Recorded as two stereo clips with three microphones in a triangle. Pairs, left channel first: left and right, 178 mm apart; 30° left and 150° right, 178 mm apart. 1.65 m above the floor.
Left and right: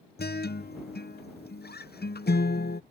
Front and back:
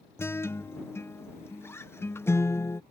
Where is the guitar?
105° left.